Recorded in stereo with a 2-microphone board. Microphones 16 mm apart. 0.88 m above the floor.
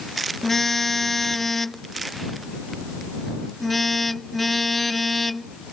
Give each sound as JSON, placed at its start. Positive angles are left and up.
{"t": 0.4, "sound": "a car horn", "side_deg": 10}